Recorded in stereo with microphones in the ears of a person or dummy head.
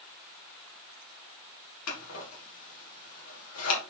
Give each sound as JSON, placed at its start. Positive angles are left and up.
{"t": 1.9, "sound": "scissors", "side_deg": 75, "distance_m": 2.5}